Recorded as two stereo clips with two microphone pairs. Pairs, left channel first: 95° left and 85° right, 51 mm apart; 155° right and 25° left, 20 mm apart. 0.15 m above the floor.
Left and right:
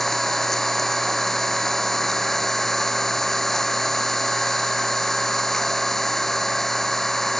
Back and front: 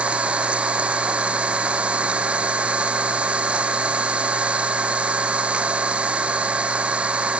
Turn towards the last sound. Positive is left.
turn(degrees=10)